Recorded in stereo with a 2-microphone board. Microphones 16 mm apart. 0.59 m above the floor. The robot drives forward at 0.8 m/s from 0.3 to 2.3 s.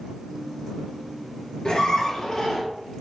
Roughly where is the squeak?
Left.